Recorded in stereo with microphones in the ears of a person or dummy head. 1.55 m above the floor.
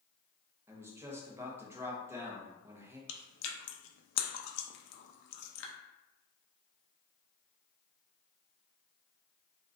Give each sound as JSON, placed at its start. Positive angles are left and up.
{"t": 0.7, "sound": "a man speaking", "side_deg": -10, "distance_m": 0.9}
{"t": 3.1, "sound": "chewing", "side_deg": 70, "distance_m": 0.6}